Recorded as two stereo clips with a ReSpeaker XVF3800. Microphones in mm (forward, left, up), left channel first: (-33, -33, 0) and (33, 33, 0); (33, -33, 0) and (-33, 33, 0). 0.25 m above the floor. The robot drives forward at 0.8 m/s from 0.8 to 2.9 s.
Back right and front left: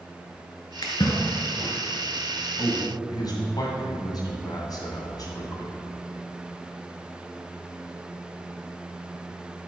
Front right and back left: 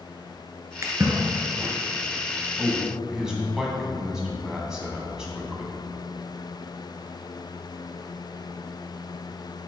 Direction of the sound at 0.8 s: 170° right.